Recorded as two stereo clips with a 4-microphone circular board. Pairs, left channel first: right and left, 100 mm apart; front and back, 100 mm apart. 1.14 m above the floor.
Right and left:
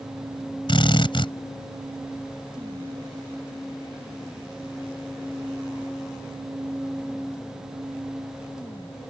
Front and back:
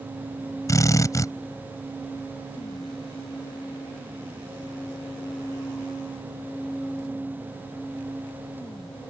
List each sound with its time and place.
0.7 s a drill: 55° right